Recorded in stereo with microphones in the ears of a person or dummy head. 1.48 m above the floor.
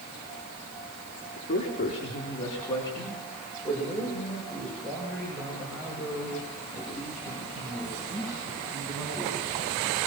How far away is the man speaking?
About 3.5 m.